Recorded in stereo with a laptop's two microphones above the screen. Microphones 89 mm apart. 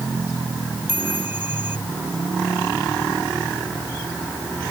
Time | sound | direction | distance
0.9 | a chime | 25° right (ahead or behind) | ?